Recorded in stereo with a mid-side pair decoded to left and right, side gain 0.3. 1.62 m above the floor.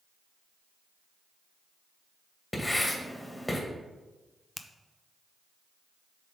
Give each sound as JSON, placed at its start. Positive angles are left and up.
{"t": 2.5, "sound": "writing", "azimuth_deg": 20, "distance_m": 1.9}
{"t": 4.6, "sound": "a finger snap", "azimuth_deg": 40, "distance_m": 0.6}